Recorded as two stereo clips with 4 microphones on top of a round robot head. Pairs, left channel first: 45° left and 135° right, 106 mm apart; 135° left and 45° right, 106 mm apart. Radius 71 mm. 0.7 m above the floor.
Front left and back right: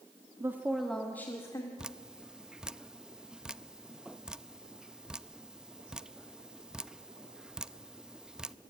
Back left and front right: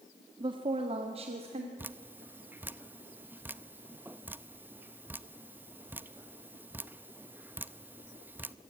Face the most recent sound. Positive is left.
turn(degrees=-70)